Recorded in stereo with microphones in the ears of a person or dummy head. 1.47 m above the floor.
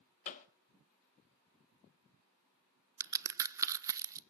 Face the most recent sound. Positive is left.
turn(degrees=-10)  # may be behind; listen again after turning